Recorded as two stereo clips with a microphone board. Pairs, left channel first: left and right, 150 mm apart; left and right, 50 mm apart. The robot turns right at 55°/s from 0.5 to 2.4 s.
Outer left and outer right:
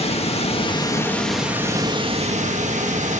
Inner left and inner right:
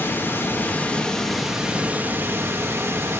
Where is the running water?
135° left, 1.9 m; by 3.2 s 120° right, 1.9 m.